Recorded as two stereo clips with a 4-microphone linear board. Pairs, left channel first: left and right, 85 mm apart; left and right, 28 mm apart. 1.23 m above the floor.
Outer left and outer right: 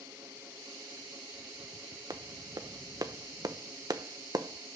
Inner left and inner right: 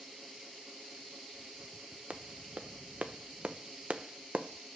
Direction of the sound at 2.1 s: 50° right (ahead or behind).